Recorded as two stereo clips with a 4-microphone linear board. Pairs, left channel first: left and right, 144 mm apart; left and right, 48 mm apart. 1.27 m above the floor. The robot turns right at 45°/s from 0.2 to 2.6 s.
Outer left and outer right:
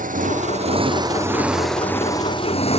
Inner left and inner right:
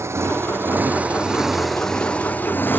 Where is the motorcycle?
65° right (ahead or behind); by 2.8 s 45° left (ahead or behind).